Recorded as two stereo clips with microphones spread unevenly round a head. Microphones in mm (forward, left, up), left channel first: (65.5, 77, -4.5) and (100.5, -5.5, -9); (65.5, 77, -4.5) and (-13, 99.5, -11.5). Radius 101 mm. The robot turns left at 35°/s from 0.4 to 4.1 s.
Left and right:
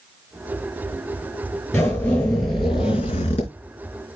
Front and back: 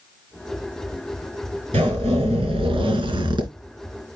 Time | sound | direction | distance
1.7 | a zipper | 160° right | 4 m